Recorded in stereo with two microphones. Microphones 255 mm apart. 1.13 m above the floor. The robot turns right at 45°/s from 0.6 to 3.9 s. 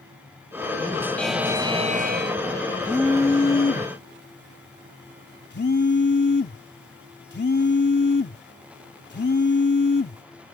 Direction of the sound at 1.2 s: 175° left.